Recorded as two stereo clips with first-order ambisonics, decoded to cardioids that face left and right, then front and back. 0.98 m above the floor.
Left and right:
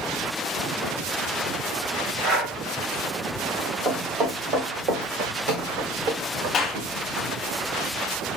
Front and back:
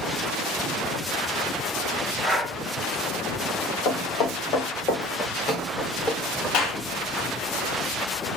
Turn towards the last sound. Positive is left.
turn(degrees=25)